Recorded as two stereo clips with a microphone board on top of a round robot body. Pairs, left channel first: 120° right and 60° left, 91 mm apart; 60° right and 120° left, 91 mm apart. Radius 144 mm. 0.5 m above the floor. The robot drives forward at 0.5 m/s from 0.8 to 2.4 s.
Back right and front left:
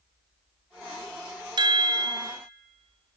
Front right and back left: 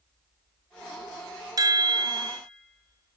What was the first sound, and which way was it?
A chime, 85° left.